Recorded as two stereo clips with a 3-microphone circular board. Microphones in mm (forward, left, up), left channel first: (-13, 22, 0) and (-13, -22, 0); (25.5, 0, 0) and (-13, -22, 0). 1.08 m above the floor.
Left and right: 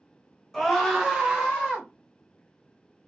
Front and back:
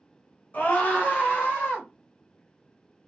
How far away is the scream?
About 0.9 m.